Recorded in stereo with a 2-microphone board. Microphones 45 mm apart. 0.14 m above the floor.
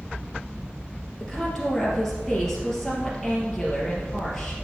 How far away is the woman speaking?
About 3 m.